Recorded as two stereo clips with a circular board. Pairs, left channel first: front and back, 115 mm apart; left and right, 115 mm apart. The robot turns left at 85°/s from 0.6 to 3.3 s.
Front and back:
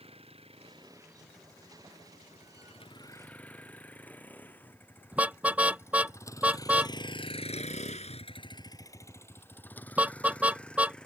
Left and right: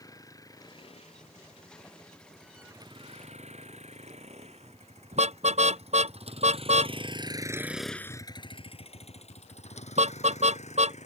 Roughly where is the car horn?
Right.